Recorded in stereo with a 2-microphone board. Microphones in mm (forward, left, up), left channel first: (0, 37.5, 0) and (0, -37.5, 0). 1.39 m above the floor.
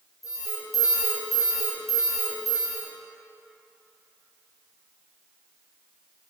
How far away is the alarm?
About 1.2 m.